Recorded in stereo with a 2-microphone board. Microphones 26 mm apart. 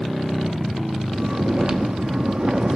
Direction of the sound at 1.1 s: 30° right (ahead or behind).